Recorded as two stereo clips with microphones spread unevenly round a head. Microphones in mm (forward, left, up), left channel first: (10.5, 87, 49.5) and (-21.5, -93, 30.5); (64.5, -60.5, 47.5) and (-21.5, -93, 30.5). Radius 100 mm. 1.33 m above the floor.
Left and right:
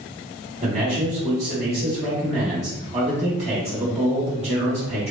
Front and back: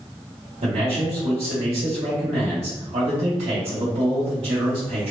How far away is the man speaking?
About 1.1 m.